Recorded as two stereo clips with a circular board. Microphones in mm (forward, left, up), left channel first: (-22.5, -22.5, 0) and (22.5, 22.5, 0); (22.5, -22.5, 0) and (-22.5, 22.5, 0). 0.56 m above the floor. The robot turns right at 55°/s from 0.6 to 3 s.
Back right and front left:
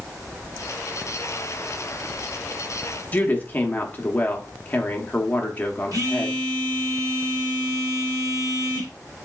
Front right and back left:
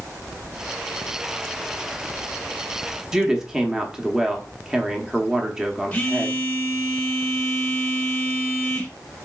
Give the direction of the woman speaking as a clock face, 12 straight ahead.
5 o'clock.